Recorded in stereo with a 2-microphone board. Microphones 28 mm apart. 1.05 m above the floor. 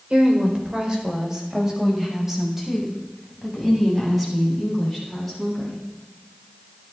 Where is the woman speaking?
40° right (ahead or behind), 4 m; by 5.8 s 5° left (ahead or behind), 10 m.